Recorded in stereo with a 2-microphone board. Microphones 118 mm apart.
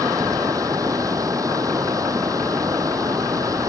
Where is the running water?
25° right (ahead or behind).